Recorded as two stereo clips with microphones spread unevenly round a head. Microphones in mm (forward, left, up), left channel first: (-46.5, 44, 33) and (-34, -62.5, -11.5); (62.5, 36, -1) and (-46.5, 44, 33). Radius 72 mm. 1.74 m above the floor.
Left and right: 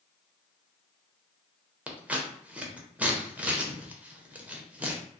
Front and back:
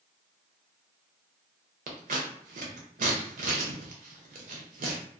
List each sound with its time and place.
1.9 s scissors: 165° right, 0.6 m